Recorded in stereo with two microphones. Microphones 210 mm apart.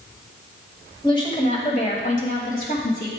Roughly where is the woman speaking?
Left.